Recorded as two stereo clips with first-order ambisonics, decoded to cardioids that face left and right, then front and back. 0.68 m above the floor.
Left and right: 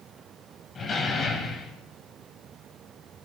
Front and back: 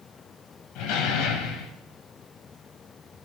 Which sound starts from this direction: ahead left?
A door slam, at 0.8 s.